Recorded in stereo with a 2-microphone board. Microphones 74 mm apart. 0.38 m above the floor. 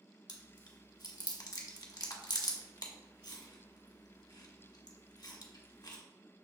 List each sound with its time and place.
0.3 s chewing: 70° left (ahead or behind), 1.0 m